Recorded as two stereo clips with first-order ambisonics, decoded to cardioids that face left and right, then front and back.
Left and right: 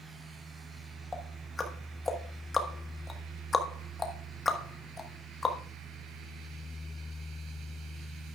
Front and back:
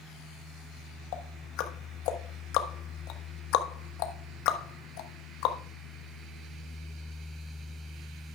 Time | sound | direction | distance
1.1 | ticking | 15° left | 1.3 m